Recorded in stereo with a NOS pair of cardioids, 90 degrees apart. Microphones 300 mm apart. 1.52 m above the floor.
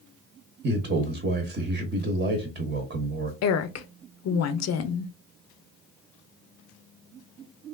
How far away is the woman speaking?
About 0.6 m.